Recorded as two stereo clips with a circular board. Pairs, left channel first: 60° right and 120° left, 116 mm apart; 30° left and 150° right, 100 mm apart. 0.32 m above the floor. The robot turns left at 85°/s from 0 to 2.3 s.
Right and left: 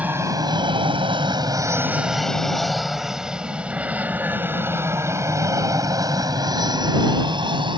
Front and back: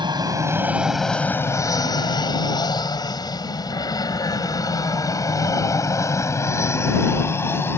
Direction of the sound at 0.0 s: 165° right.